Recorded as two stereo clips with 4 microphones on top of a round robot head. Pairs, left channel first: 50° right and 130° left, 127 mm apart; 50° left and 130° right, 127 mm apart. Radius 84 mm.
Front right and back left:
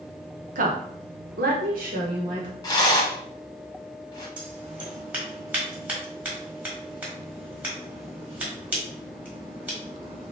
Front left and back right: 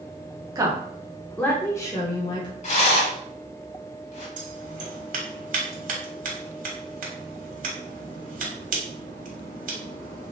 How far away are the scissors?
About 1.4 m.